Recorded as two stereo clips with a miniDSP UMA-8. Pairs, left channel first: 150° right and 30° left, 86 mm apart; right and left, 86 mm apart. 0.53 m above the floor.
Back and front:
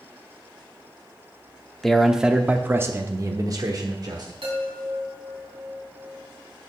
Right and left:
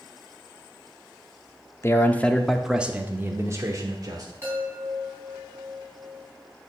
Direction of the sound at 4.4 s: 30° left.